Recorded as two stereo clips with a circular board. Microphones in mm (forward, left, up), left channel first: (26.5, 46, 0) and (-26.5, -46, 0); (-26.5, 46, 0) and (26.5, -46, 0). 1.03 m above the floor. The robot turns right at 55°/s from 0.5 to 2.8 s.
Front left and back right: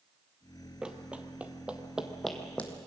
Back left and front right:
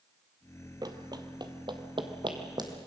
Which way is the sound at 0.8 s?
45° right.